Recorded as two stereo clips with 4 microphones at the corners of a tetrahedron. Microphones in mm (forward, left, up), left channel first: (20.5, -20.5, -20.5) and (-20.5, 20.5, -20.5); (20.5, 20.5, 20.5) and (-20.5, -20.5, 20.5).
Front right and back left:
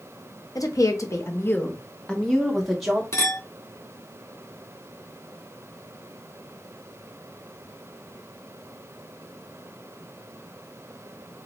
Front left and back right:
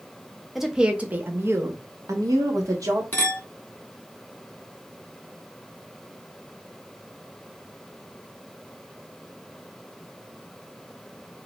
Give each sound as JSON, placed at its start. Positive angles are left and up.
{"t": 0.6, "sound": "a woman speaking", "azimuth_deg": -50, "distance_m": 0.7}
{"t": 3.1, "sound": "a clink", "azimuth_deg": -10, "distance_m": 1.6}